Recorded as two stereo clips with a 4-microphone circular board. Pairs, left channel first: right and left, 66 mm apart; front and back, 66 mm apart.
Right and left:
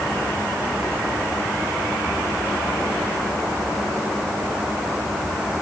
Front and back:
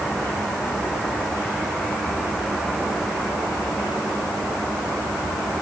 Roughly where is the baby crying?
No baby crying in this recording.